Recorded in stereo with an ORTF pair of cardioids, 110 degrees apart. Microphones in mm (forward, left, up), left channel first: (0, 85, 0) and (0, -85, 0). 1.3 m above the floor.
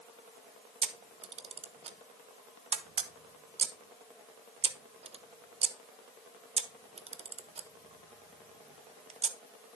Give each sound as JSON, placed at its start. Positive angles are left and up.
{"t": 0.8, "sound": "a camera shutter", "azimuth_deg": -35, "distance_m": 1.0}